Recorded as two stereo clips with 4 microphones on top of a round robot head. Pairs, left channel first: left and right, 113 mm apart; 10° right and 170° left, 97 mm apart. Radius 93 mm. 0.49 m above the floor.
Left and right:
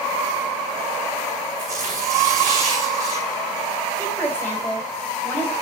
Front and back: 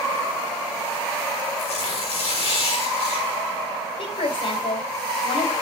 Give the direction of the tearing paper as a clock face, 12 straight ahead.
1 o'clock.